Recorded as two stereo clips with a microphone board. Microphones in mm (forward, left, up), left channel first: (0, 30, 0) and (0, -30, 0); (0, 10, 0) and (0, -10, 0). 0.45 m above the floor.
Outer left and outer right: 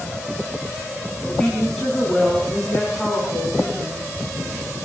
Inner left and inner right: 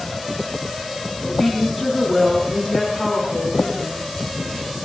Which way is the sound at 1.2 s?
15° left (ahead or behind).